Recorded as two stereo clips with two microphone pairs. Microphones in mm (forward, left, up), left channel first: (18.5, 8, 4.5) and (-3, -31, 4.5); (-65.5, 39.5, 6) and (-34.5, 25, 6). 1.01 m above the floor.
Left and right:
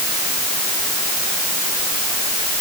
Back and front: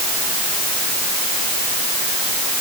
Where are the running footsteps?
No running footsteps in this recording.